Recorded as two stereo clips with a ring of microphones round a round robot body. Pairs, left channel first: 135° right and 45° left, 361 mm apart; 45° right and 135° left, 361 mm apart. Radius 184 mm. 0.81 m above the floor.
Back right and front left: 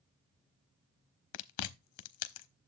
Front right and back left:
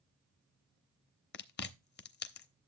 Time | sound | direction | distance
1.3 | chewing | 105° right | 0.8 m